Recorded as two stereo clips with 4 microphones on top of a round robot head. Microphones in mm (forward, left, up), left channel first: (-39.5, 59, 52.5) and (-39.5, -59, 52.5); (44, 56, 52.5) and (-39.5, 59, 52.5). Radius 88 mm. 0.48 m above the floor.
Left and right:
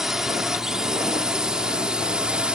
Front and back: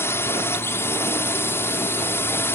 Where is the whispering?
No whispering in this recording.